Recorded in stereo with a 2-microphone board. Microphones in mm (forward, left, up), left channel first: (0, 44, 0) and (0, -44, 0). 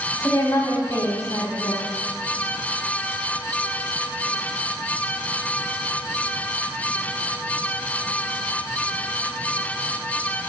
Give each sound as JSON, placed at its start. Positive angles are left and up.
{"t": 0.2, "sound": "a woman speaking", "side_deg": 35, "distance_m": 2.5}